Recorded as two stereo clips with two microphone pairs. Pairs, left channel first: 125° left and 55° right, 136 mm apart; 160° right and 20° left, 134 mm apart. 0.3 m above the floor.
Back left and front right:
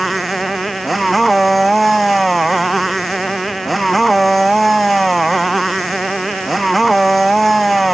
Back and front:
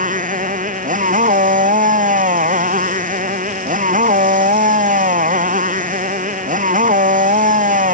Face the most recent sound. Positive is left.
turn(degrees=35)